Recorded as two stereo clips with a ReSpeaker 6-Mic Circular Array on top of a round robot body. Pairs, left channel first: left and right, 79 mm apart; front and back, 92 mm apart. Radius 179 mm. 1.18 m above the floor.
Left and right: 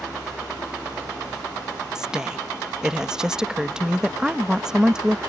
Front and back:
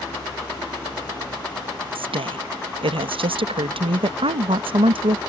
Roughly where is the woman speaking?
Behind.